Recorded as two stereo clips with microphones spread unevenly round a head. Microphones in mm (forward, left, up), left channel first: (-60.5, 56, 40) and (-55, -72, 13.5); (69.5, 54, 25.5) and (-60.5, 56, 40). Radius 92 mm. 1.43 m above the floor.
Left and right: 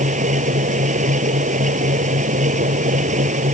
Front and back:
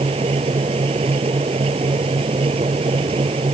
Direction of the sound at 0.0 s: 120° right.